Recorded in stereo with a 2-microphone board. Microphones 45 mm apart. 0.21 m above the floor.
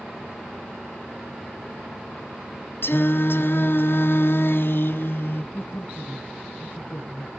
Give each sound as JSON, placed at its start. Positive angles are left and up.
{"t": 2.8, "sound": "singing", "side_deg": 60, "distance_m": 0.7}
{"t": 5.5, "sound": "a woman speaking", "side_deg": 40, "distance_m": 1.8}